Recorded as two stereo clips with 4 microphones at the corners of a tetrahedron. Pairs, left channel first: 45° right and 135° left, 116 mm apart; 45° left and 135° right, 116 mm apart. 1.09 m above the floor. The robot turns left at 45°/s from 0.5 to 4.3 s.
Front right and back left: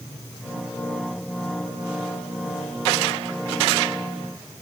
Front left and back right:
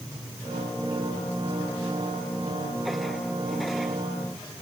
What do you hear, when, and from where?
Only background noise.